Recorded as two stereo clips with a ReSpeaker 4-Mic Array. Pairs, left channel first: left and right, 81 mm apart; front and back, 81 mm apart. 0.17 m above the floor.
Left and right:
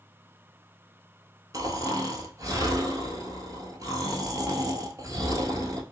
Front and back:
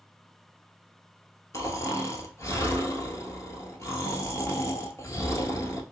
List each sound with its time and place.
1.5 s snoring: 50° right, 0.7 m